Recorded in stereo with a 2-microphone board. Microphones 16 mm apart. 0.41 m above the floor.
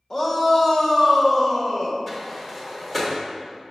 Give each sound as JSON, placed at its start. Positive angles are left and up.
{"t": 0.1, "sound": "a shout", "side_deg": 25, "distance_m": 1.1}
{"t": 2.1, "sound": "a sliding door", "side_deg": 5, "distance_m": 1.2}